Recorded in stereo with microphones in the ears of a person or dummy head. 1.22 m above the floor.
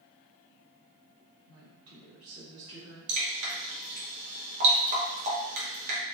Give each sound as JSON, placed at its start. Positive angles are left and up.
{"t": 1.5, "sound": "a woman speaking", "side_deg": -70, "distance_m": 1.6}
{"t": 3.1, "sound": "dripping", "side_deg": -35, "distance_m": 0.9}